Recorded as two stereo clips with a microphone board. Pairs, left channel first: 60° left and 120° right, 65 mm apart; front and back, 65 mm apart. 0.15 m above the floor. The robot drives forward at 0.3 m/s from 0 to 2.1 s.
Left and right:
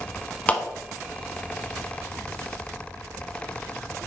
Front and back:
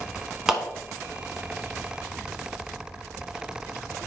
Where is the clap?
105° left, 1.1 m; by 0.6 s 110° left, 1.1 m.